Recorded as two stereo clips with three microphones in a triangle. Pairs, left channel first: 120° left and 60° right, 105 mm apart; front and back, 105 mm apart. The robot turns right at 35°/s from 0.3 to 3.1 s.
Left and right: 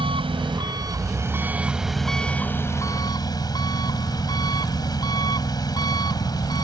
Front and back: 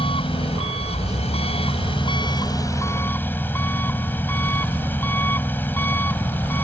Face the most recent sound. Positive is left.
turn(degrees=70)